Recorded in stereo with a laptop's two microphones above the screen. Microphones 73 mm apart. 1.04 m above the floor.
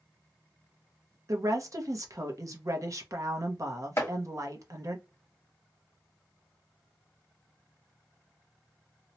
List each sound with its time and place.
1.3 s a woman speaking: 50° right (ahead or behind), 0.7 m
4.0 s chopping: 40° left (ahead or behind), 1.2 m